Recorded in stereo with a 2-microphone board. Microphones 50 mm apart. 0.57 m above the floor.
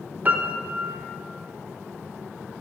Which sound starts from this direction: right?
A piano, at 0.2 s.